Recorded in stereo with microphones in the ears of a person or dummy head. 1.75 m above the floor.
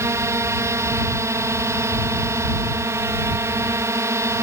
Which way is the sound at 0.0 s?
15° right (ahead or behind).